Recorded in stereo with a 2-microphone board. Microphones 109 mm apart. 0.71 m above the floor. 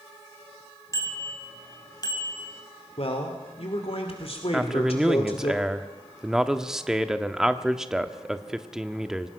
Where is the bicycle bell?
30° left (ahead or behind), 3.5 m; by 2.5 s 35° left (ahead or behind), 3 m.